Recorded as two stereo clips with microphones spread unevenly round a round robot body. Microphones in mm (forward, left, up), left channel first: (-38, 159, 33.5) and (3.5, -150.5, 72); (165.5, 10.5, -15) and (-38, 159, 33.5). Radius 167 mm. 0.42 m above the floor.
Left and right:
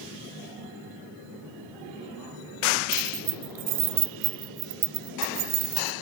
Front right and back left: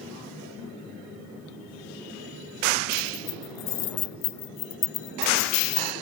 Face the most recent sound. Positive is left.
turn(degrees=-30)